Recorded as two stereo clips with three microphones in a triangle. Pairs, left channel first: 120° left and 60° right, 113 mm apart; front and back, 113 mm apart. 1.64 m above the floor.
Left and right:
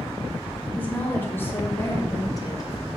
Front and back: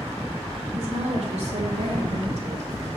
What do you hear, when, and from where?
0.7 s a woman speaking: 165° right, 3 m; by 2.7 s 175° left, 2 m